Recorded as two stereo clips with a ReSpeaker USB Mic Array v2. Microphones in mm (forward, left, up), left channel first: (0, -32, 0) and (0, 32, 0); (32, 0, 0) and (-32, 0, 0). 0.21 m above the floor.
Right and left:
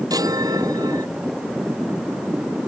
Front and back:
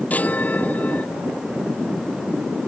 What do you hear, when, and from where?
0.1 s a chime: 65° left